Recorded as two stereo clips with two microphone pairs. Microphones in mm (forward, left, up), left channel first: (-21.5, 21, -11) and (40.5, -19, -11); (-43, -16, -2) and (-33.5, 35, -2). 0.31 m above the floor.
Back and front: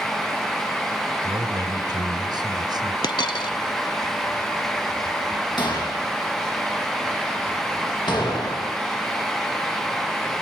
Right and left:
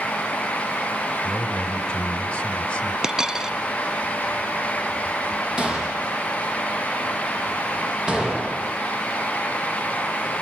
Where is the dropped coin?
155° left, 0.7 m.